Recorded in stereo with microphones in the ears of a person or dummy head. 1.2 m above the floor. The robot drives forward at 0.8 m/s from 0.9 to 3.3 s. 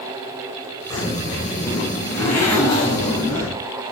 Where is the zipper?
15° left (ahead or behind), 6.5 m.